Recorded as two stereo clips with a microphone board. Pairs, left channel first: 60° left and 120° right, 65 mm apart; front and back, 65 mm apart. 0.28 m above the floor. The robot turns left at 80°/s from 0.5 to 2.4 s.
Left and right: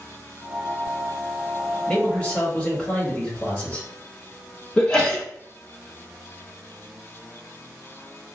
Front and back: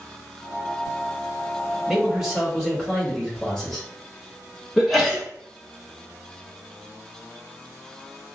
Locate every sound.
1.9 s a man speaking: 125° left, 1.1 m; by 3.9 s 85° left, 1.1 m
4.8 s a sneeze: 95° left, 0.9 m